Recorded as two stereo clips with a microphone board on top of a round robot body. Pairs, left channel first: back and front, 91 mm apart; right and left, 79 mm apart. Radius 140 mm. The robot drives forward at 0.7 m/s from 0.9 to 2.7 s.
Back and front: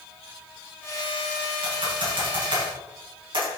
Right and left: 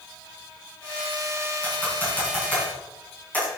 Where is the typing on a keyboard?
20° right, 5 m.